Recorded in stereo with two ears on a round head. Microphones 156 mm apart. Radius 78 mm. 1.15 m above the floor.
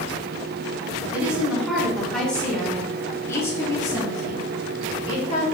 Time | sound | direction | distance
1.1 | a woman speaking | 5° right (ahead or behind) | 3 m